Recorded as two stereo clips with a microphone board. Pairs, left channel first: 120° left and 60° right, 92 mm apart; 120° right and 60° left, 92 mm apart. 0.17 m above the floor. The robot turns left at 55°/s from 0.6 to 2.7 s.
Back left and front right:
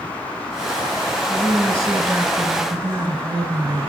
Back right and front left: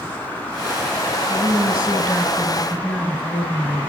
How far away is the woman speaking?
About 1.6 m.